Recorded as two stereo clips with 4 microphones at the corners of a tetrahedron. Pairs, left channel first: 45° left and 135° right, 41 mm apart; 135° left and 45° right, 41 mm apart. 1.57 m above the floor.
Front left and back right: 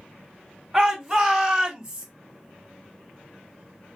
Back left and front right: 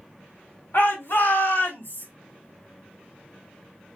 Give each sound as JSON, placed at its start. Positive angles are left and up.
{"t": 0.7, "sound": "a shout", "azimuth_deg": 140, "distance_m": 2.5}